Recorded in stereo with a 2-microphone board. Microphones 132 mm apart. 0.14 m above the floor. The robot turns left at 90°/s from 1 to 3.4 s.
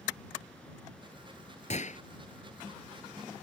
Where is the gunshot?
55° left (ahead or behind); by 2.0 s 60° left (ahead or behind).